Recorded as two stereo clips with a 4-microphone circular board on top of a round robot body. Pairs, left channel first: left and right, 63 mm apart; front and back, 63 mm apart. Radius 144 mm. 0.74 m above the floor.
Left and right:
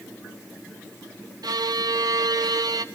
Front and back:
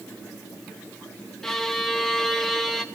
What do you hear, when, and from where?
1.4 s a violin: 85° right, 1.1 m